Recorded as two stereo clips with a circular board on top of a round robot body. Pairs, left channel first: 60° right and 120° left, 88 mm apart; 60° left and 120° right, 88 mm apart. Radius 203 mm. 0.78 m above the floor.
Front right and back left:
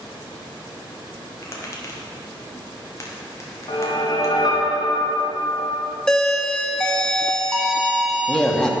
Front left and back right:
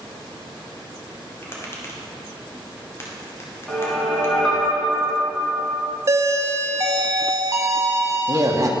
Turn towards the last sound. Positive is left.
turn(degrees=-140)